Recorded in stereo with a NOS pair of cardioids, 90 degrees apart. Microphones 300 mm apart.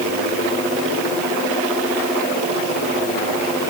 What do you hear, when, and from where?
Only background noise.